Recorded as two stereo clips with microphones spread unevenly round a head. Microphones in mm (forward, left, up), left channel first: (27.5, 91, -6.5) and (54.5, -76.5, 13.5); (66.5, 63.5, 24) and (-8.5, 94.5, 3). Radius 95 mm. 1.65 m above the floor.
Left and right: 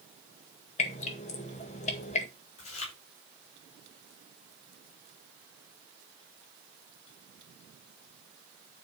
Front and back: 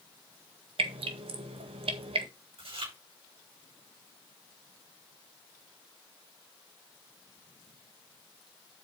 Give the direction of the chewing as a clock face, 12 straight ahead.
7 o'clock.